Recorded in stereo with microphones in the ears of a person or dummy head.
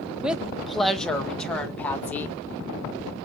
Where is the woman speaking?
5° right (ahead or behind), 1.0 m; by 2.4 s 10° left (ahead or behind), 2 m.